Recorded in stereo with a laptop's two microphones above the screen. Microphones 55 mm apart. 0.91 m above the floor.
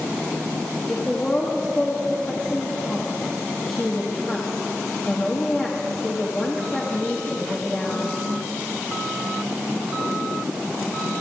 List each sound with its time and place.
0.9 s a woman speaking: 30° left (ahead or behind), 1.4 m